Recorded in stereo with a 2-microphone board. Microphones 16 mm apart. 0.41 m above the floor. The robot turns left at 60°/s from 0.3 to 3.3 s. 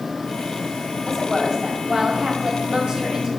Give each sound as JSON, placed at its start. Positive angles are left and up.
{"t": 1.1, "sound": "a woman speaking", "azimuth_deg": -5, "distance_m": 2.0}